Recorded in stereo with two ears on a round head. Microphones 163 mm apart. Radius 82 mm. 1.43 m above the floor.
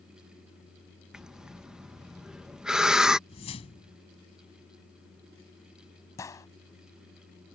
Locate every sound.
1.1 s breathing: 5° right (ahead or behind)
3.3 s a whoosh: 35° left (ahead or behind)
6.2 s a gunshot: 20° left (ahead or behind)